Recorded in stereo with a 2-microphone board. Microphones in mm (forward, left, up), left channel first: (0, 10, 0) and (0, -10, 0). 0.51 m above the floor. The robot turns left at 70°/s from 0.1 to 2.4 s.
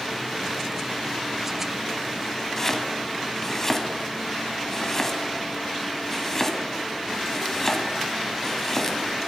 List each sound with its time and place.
2.6 s chopping: 20° left (ahead or behind), 1.7 m